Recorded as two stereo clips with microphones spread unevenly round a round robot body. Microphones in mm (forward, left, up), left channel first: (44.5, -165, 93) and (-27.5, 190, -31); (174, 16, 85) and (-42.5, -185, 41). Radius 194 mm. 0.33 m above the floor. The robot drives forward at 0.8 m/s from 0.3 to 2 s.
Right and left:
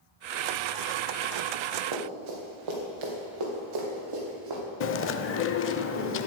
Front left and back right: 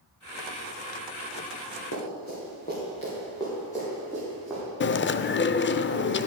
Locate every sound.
1.9 s running footsteps: 105° left, 3.5 m; by 4.6 s 130° left, 4 m
4.8 s chewing: 10° right, 0.6 m